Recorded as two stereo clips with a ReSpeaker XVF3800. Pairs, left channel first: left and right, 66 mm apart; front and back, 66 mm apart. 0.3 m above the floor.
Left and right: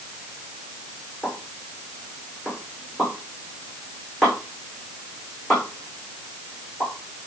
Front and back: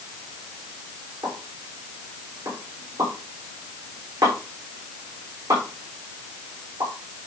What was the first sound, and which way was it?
A pop, 175° left.